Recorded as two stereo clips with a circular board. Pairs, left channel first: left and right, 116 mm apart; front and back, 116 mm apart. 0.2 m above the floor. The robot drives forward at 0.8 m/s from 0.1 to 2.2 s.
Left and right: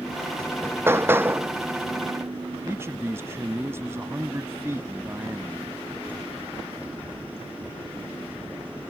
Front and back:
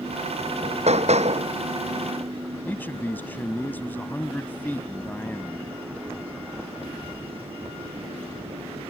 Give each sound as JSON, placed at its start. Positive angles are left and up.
{"t": 0.4, "sound": "hammering", "azimuth_deg": -155}
{"t": 2.6, "sound": "a man speaking", "azimuth_deg": -55}